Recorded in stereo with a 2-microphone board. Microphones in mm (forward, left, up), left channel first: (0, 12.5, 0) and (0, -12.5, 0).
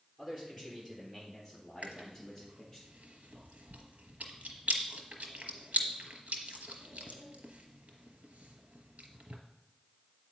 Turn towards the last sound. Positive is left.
turn(degrees=-70)  # may be behind; listen again after turning